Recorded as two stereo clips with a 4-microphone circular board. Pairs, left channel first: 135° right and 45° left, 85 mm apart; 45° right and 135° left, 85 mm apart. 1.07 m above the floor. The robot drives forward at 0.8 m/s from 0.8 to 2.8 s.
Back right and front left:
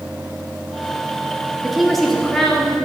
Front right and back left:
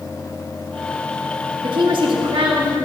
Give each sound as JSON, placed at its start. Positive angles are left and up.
{"t": 1.6, "sound": "a woman speaking", "azimuth_deg": 130, "distance_m": 2.0}